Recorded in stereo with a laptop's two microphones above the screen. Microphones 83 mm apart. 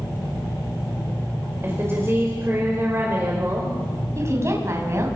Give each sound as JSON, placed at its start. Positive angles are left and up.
{"t": 1.6, "sound": "a woman speaking", "side_deg": -30, "distance_m": 4.5}
{"t": 4.2, "sound": "a woman speaking", "side_deg": -35, "distance_m": 7.0}